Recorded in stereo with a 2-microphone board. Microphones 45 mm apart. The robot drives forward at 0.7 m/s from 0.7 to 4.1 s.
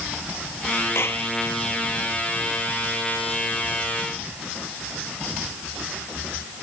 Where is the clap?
65° left (ahead or behind).